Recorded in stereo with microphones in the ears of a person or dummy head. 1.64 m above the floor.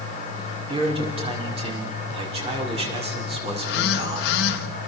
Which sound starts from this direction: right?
A man speaking, at 0.7 s.